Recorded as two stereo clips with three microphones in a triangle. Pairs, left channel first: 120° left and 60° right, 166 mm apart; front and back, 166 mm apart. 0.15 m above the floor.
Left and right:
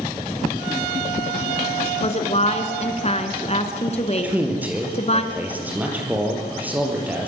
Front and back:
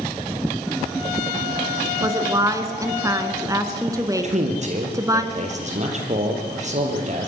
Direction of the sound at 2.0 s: 120° left.